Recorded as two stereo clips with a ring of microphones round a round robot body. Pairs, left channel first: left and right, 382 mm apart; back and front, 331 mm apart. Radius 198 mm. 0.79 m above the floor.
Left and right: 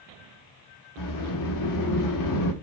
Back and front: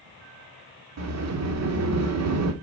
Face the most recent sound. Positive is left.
turn(degrees=45)